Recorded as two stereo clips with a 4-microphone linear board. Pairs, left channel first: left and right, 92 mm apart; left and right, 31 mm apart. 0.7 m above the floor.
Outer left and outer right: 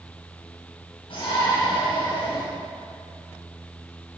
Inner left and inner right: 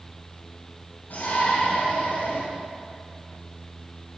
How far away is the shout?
About 4.5 m.